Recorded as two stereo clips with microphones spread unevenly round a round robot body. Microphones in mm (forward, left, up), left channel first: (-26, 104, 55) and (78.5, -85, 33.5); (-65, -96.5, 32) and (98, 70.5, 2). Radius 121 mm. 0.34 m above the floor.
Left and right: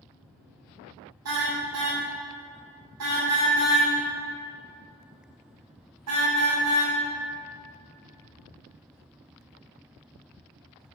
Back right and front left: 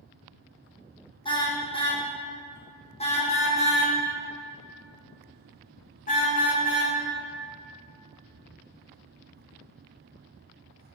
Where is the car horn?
65° right, 6.5 m; by 6.9 s 80° right, 8.5 m.